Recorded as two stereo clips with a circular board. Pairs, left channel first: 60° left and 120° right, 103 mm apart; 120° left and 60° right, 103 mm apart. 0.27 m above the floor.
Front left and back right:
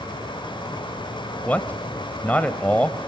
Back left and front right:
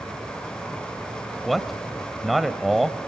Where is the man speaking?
30° left, 0.9 m.